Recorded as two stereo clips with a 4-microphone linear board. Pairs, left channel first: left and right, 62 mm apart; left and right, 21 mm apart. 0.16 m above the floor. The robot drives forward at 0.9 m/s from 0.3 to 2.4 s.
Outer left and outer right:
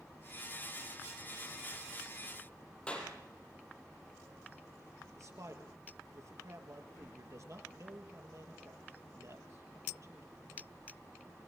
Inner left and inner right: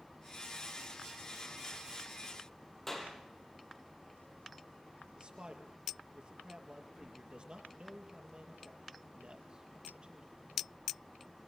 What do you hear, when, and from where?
2.9 s a clap: 15° left (ahead or behind), 4.5 m
5.2 s a man speaking: 55° right (ahead or behind), 3.5 m